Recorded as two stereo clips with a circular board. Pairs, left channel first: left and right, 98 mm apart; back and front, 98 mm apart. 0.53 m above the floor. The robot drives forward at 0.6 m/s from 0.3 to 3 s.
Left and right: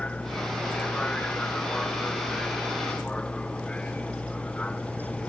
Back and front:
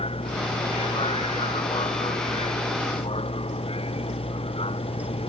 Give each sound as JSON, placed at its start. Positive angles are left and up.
{"t": 0.0, "sound": "a vehicle", "azimuth_deg": 170}